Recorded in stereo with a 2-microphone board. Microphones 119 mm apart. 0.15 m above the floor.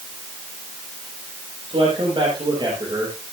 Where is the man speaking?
50° right (ahead or behind), 5.5 m; by 3.2 s 30° right (ahead or behind), 4 m.